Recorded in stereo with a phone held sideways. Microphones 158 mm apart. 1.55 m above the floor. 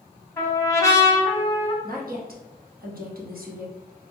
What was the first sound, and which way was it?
A trumpet, 20° left (ahead or behind).